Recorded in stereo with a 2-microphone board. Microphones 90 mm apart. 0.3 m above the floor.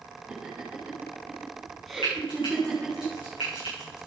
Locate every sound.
0.3 s laughter: 10° right (ahead or behind), 3.5 m; by 3.0 s 10° left (ahead or behind), 4 m
2.0 s frying: 65° left (ahead or behind), 8 m